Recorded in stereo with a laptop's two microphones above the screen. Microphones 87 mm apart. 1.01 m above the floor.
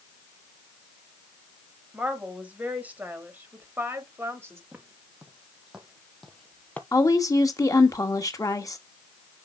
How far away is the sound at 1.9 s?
About 4.5 m.